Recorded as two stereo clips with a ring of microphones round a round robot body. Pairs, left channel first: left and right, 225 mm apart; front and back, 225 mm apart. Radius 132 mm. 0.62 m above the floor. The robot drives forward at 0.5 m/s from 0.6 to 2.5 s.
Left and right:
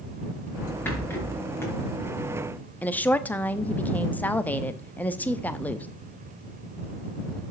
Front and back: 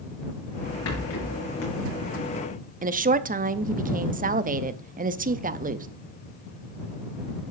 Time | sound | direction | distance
0.8 | a rattle | 10° left | 4 m
2.8 | a woman speaking | 170° left | 0.8 m